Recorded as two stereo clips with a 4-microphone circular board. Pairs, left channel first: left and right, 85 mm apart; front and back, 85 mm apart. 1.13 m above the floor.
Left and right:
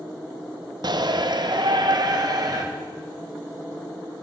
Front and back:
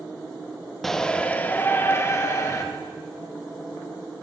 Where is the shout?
85° right, 0.7 m; by 2.6 s 50° right, 1.4 m.